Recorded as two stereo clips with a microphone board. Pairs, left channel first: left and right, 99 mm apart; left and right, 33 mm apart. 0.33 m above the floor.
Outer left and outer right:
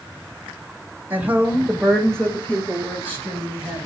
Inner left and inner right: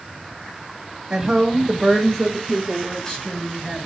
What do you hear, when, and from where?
1.1 s a woman speaking: 20° right (ahead or behind), 0.8 m; by 3.9 s 25° left (ahead or behind), 2.0 m